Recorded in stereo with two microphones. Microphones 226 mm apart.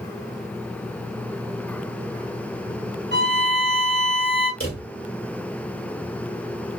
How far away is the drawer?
About 1.5 m.